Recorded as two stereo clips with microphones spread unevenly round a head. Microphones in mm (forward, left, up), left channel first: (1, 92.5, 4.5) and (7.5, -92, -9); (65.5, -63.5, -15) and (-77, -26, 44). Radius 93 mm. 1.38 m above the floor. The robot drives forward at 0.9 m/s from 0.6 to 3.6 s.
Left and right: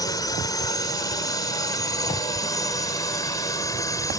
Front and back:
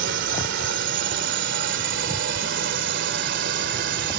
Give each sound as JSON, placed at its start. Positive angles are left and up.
{"t": 0.0, "sound": "a drone", "azimuth_deg": 165}